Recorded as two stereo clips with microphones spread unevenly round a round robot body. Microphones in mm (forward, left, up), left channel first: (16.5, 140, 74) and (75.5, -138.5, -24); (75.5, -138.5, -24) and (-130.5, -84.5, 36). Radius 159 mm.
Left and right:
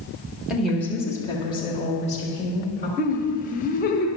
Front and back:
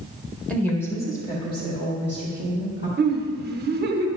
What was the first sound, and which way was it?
A woman speaking, 45° right.